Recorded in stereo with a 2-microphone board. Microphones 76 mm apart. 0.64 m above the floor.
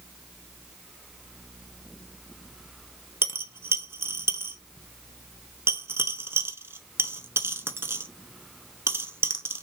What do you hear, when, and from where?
3.2 s a dropped coin: 30° right (ahead or behind), 0.6 m